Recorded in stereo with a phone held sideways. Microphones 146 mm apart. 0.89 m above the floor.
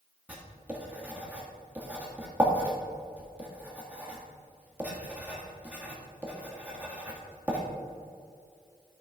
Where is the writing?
10° right (ahead or behind), 1.6 m.